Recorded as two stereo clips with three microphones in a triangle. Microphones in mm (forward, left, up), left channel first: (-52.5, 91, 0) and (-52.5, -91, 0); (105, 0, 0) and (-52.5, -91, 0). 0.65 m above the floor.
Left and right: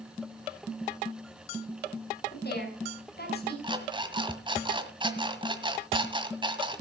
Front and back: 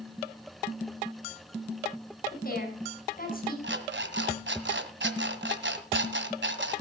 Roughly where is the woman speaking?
Ahead left.